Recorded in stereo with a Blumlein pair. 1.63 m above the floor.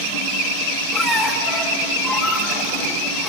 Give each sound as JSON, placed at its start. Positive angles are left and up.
{"t": 0.9, "sound": "a squeak", "azimuth_deg": 10, "distance_m": 3.5}